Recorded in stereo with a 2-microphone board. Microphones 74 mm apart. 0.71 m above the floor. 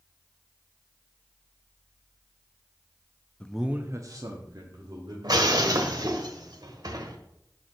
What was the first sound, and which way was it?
A man speaking, 15° left (ahead or behind).